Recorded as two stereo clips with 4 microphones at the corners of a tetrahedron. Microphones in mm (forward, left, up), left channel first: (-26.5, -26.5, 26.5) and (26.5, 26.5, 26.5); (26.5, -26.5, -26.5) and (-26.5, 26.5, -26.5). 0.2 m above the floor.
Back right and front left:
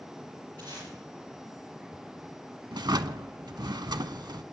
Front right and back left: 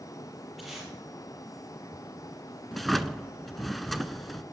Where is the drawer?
45° left, 0.5 m.